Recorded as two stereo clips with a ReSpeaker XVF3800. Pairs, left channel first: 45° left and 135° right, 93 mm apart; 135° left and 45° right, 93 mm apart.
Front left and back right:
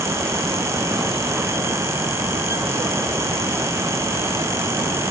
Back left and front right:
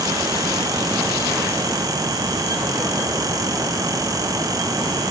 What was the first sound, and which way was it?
Only background noise.